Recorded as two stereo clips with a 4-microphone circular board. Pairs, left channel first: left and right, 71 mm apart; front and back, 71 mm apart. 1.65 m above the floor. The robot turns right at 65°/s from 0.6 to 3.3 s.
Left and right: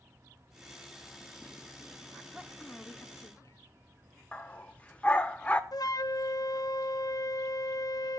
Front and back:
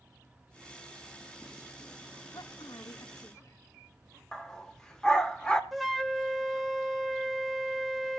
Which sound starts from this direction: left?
A flute, at 5.7 s.